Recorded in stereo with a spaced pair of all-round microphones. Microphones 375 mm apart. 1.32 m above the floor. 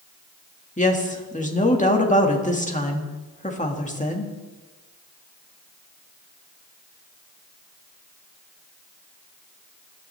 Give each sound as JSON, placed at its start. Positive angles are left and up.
{"t": 0.8, "sound": "a woman speaking", "side_deg": 20, "distance_m": 1.9}